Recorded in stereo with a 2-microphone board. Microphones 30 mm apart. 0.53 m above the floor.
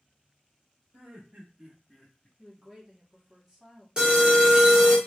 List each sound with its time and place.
0.9 s laughter: 65° right (ahead or behind), 1.6 m; by 2.3 s 40° left (ahead or behind), 0.9 m
2.4 s a woman speaking: 20° right (ahead or behind), 1.6 m
4.0 s an alarm: 30° right (ahead or behind), 1.1 m